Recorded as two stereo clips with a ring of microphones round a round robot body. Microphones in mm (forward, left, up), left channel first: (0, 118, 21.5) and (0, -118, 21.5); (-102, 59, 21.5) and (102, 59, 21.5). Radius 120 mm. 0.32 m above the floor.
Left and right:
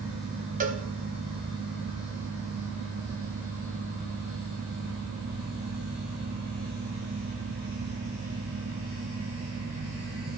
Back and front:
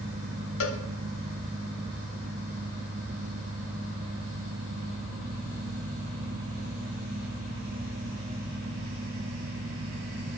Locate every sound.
0.6 s a cowbell: 150° right, 0.9 m